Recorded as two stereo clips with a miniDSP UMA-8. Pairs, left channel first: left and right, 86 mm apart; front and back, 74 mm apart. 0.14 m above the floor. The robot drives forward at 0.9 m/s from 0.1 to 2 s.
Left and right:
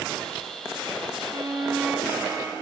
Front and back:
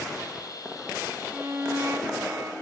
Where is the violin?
105° right, 0.6 m; by 2.5 s 155° right, 0.9 m.